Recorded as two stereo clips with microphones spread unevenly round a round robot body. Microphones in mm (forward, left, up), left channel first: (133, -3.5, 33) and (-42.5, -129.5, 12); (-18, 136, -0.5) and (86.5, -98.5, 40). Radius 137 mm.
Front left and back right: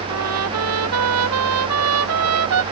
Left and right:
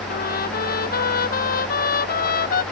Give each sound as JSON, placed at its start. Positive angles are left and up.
{"t": 0.1, "sound": "a trumpet", "azimuth_deg": 175}